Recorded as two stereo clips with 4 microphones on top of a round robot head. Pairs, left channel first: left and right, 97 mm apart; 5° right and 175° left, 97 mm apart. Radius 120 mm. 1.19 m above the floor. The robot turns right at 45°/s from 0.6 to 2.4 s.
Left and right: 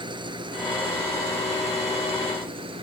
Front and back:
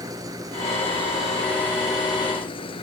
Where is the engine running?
130° right; by 2.8 s 50° right.